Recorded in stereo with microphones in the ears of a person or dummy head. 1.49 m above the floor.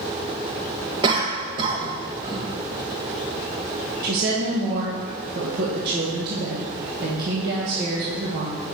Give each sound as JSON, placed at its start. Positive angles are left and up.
{"t": 1.0, "sound": "a cough", "side_deg": -25, "distance_m": 1.3}
{"t": 4.0, "sound": "a woman speaking", "side_deg": -55, "distance_m": 1.4}